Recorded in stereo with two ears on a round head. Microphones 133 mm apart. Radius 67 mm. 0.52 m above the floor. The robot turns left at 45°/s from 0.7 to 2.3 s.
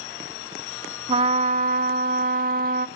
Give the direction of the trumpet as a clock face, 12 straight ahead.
1 o'clock.